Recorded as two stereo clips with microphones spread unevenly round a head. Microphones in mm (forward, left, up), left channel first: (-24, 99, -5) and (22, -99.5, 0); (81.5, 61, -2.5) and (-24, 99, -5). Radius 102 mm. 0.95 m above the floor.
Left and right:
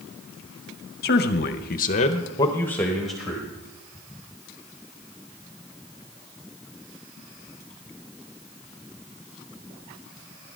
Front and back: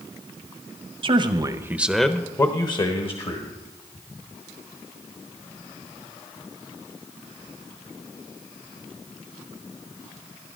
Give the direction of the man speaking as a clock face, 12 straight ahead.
7 o'clock.